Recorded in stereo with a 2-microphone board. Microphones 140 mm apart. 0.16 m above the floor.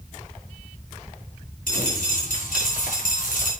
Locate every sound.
1.7 s a dropped coin: 90° left, 5.5 m